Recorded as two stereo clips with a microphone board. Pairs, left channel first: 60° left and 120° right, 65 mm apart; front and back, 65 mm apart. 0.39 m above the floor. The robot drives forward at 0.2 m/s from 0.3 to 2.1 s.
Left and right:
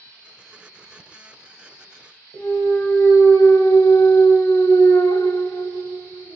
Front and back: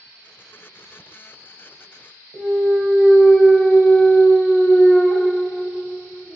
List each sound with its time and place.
2.3 s a clunk: 85° left, 0.5 m